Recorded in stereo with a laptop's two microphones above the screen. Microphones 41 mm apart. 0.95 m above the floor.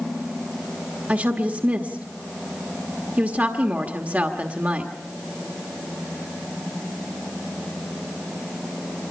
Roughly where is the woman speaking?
Right.